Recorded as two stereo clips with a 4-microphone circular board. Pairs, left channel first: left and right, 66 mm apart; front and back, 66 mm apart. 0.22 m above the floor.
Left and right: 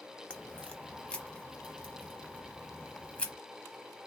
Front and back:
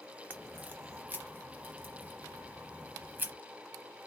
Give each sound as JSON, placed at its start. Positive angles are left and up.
{"t": 0.3, "sound": "a crack", "azimuth_deg": 145, "distance_m": 0.8}